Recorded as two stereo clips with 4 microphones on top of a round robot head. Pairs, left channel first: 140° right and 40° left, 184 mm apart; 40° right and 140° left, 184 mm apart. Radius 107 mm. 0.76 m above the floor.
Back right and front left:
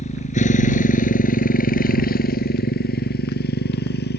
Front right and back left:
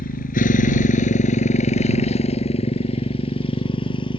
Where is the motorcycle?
85° right; by 4.2 s 105° right.